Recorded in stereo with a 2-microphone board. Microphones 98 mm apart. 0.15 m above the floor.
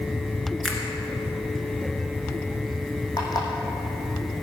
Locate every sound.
0.6 s a finger snap: 10° left (ahead or behind), 1.8 m
3.2 s an alarm clock: 40° left (ahead or behind), 2.5 m